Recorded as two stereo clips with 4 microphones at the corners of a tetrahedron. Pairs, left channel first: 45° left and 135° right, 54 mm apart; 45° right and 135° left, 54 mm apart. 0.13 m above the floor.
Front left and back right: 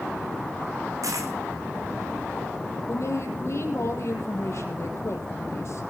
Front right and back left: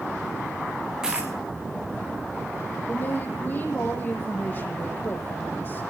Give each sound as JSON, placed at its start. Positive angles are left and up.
{"t": 1.0, "sound": "a dropped coin", "azimuth_deg": -145, "distance_m": 3.0}
{"t": 2.9, "sound": "a woman speaking", "azimuth_deg": 10, "distance_m": 4.0}